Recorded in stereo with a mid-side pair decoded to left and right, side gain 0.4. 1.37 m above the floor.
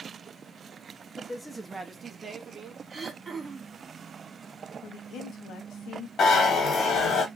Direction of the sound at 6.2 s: 65° left.